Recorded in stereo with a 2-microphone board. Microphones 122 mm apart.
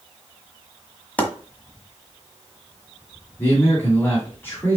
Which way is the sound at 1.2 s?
15° left (ahead or behind).